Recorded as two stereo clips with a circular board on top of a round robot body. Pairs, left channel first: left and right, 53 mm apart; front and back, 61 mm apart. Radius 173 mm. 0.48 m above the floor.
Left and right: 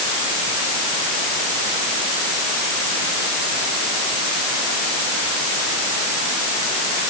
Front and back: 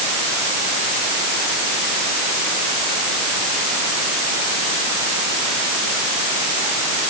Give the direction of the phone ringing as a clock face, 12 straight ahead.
I don't hear a phone ringing.